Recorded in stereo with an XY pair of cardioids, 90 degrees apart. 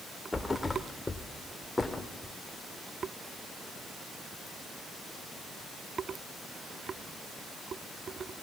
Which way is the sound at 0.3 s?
20° left.